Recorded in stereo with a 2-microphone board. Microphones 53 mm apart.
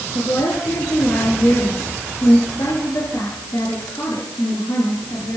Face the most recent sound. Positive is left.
turn(degrees=80)